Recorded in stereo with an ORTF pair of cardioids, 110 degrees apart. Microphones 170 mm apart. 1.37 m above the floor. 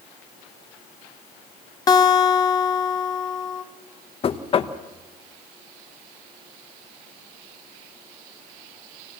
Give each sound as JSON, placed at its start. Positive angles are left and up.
{"t": 1.9, "sound": "a guitar", "azimuth_deg": 25, "distance_m": 1.6}
{"t": 4.2, "sound": "knocking", "azimuth_deg": 35, "distance_m": 1.0}